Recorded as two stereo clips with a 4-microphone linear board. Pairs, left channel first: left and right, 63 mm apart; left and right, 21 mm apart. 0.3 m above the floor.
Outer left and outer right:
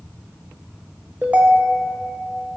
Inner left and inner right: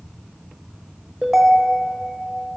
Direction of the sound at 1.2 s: 20° right (ahead or behind).